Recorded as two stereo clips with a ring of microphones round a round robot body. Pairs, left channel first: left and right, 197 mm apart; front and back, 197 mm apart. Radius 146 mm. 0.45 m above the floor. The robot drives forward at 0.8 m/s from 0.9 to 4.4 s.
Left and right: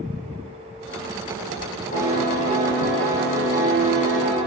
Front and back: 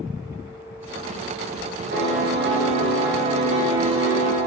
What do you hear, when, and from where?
1.9 s a piano: 145° left, 1.6 m; by 4.4 s 165° left, 3.5 m